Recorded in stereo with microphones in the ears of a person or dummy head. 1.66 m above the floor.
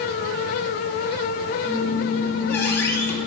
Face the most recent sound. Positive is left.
turn(degrees=15)  # may be behind; listen again after turning